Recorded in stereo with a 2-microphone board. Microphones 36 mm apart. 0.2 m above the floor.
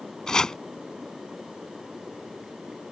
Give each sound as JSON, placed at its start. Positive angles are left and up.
{"t": 0.3, "sound": "chopping", "side_deg": 20}